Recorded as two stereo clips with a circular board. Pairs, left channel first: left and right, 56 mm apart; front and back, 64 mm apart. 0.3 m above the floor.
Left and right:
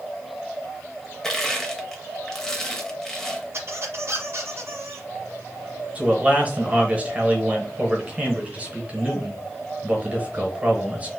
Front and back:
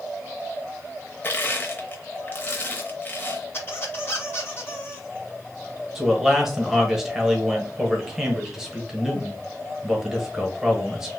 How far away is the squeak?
About 1.3 m.